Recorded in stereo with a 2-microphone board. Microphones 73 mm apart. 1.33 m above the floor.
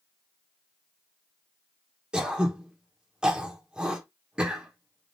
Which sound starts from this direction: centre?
Throat clearing, at 2.1 s.